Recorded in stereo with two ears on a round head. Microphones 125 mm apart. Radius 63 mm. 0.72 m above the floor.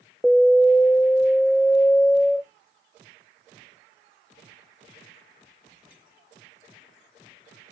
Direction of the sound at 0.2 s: 5° left (ahead or behind).